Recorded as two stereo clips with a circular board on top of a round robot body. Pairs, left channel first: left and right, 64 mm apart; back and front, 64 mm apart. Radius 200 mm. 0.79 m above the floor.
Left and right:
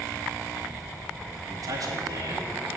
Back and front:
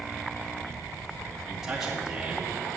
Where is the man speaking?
80° right, 2 m.